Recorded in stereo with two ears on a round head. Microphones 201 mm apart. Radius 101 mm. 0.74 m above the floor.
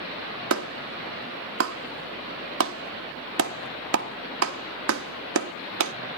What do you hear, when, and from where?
0.5 s a clap: 65° right (ahead or behind), 1.0 m